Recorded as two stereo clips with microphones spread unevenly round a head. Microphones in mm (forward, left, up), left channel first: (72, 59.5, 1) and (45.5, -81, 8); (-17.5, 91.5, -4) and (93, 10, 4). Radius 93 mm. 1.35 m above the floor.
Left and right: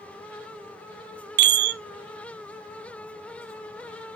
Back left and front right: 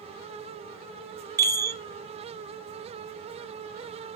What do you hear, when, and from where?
1.4 s a chime: 110° right, 0.5 m